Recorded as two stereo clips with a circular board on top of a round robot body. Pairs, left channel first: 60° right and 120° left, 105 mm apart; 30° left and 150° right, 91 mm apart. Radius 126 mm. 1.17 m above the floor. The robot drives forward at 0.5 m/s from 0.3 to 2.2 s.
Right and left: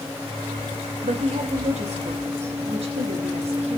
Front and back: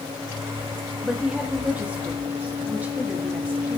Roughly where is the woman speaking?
Behind left.